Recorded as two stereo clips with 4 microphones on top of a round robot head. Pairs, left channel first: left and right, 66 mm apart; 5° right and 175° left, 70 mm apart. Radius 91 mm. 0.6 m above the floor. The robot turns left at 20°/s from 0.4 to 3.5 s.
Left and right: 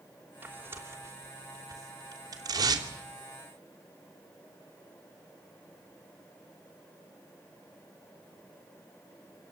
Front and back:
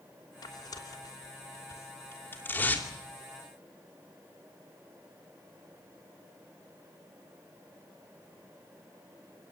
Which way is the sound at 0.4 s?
25° right.